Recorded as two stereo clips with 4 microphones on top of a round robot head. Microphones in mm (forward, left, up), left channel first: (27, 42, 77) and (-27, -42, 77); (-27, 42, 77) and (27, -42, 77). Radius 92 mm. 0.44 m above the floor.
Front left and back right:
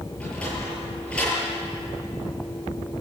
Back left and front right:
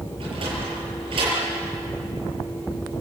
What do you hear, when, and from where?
0.2 s a sliding door: 25° right, 8.5 m